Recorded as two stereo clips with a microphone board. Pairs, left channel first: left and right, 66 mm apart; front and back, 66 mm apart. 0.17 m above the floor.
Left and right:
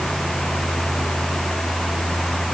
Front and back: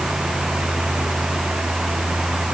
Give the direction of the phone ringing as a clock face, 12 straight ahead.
I don't hear a phone ringing.